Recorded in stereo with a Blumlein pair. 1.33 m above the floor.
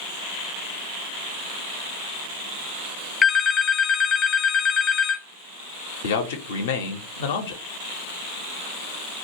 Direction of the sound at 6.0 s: 55° left.